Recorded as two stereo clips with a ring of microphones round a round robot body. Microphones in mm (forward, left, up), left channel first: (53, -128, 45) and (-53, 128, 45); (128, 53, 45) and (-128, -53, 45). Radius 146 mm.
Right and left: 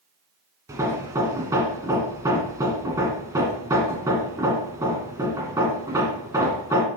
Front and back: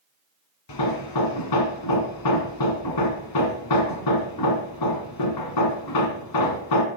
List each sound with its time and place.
0.7 s hammering: 35° left, 1.6 m